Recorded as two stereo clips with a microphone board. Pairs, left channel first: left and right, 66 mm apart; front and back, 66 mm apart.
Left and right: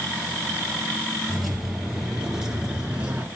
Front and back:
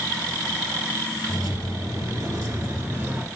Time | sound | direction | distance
1.3 | keys jangling | straight behind | 2 m